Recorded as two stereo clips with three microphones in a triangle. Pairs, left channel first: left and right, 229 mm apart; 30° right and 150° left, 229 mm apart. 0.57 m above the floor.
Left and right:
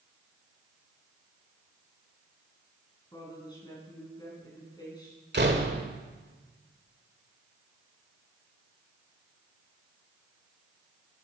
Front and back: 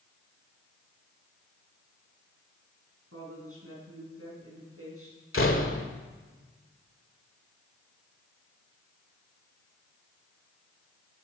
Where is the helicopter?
I don't hear a helicopter.